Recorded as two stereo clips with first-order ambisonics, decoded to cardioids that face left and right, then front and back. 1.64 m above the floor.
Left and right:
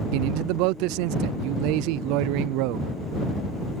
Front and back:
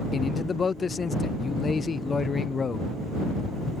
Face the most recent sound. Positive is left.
turn(degrees=-75)